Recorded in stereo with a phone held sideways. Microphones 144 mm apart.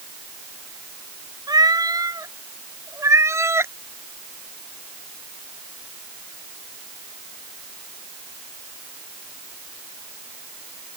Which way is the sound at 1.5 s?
25° right (ahead or behind).